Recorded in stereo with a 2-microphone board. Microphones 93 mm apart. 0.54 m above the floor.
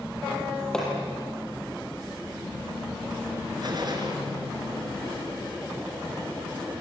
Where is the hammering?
5° left (ahead or behind), 6 m.